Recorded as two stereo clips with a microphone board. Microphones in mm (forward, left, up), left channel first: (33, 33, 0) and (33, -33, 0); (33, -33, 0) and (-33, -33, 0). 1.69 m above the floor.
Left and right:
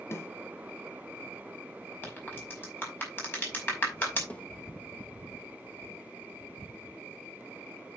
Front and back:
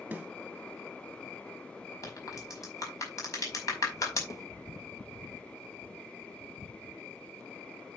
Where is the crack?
35° left, 5 m.